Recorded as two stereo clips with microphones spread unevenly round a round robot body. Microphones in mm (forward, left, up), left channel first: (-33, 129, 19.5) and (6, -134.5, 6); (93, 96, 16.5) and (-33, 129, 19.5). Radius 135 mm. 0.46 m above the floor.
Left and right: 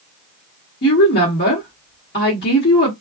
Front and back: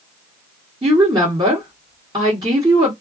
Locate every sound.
0.8 s a woman speaking: 130° left, 1.4 m